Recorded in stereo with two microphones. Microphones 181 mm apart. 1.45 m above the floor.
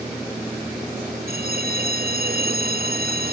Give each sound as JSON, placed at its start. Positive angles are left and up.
{"t": 1.3, "sound": "a bell", "side_deg": -65}